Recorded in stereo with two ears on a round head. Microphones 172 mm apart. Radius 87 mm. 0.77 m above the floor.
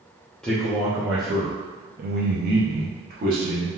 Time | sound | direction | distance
0.4 | a man speaking | 5° left (ahead or behind) | 0.8 m